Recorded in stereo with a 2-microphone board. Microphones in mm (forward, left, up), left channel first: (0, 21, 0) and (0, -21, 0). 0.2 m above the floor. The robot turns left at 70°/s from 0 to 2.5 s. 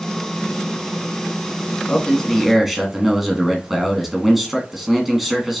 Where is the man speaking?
35° left, 1.6 m; by 5.6 s 5° right, 1.6 m.